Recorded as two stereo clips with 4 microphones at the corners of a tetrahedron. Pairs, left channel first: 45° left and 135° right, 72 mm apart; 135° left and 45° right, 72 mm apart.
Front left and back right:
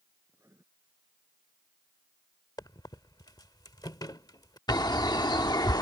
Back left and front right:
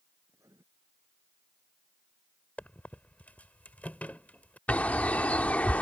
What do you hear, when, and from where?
0.3 s writing: 85° right
2.6 s a squeak: 70° left
4.7 s a bird: 65° left